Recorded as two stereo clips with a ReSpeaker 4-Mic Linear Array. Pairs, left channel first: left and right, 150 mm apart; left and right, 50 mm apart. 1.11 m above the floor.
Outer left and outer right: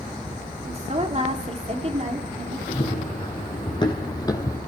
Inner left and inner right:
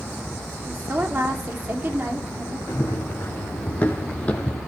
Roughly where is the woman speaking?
Right.